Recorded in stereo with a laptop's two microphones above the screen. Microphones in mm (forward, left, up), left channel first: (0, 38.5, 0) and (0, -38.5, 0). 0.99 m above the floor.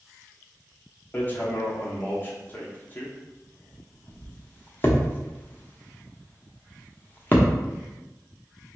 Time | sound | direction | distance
1.1 | hammering | 25° left (ahead or behind) | 0.8 m